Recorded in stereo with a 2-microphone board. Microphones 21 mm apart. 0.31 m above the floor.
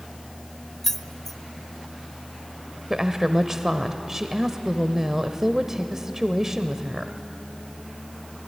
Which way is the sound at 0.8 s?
10° left (ahead or behind).